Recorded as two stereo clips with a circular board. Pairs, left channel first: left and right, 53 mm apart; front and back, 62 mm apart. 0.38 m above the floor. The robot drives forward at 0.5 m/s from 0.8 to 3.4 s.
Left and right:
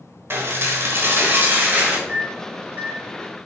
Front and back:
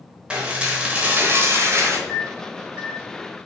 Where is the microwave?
95° right, 1.1 m; by 3.0 s 130° right, 1.2 m.